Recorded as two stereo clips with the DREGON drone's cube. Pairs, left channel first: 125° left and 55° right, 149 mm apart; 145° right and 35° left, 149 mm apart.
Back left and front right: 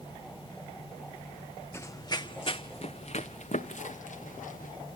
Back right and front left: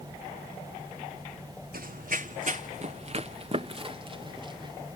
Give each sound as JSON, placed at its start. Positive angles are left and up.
{"t": 1.7, "sound": "running footsteps", "azimuth_deg": 50, "distance_m": 0.8}